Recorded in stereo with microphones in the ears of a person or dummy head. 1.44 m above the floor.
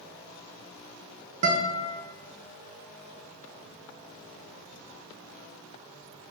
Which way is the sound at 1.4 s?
45° right (ahead or behind).